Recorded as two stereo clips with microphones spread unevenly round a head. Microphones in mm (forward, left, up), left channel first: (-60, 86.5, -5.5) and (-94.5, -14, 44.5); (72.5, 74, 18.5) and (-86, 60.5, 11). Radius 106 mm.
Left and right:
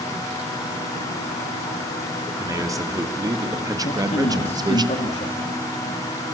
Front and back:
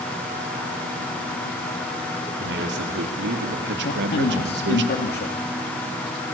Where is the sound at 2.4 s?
170° right, 4 m; by 4.8 s 165° right, 2 m.